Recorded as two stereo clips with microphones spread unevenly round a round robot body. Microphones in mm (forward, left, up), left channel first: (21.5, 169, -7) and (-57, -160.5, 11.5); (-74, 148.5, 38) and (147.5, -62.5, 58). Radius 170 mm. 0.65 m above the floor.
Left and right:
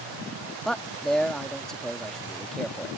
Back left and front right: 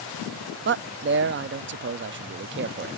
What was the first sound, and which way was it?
A man speaking, 5° right.